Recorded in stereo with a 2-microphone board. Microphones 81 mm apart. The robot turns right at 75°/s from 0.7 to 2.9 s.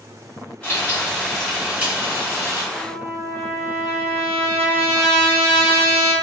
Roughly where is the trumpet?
Right.